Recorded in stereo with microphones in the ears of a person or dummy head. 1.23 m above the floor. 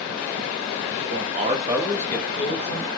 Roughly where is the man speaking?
Right.